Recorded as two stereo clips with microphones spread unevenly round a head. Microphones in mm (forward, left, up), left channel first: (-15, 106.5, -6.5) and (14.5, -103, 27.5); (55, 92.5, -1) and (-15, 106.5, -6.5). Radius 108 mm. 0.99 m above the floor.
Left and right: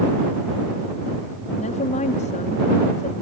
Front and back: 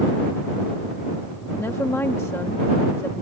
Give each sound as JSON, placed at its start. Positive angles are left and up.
{"t": 1.6, "sound": "a woman speaking", "azimuth_deg": 45}